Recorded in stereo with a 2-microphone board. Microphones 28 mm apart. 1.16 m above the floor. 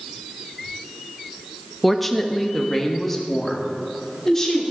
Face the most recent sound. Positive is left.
turn(degrees=15)  # may be behind; listen again after turning